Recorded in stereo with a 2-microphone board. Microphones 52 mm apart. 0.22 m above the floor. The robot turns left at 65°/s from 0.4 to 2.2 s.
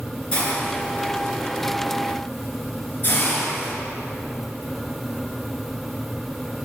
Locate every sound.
0.3 s a hiss: 20° left (ahead or behind), 2.5 m; by 3.7 s 40° left (ahead or behind), 2.5 m